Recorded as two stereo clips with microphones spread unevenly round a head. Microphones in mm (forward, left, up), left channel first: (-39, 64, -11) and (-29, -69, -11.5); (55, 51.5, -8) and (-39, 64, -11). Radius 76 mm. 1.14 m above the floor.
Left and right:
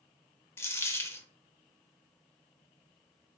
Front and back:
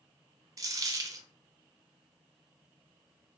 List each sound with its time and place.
0.6 s a dropped coin: 155° left, 0.5 m